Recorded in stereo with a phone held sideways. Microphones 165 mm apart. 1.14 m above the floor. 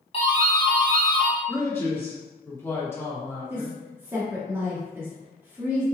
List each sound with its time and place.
0.1 s a doorbell: 35° left (ahead or behind), 1.2 m
1.5 s a man speaking: 15° left (ahead or behind), 1.5 m
3.5 s a woman speaking: 15° right (ahead or behind), 1.1 m